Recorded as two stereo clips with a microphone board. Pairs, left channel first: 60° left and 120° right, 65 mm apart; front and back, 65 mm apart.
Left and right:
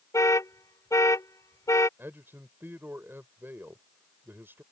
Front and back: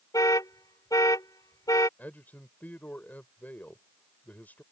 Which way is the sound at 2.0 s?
65° right.